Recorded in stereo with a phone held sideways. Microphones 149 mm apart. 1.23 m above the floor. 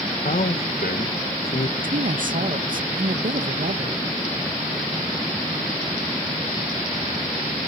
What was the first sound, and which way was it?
A man speaking, 85° left.